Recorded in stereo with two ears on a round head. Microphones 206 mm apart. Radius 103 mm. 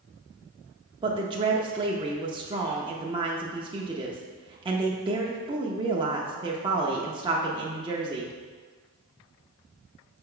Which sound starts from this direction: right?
A woman speaking, at 1.0 s.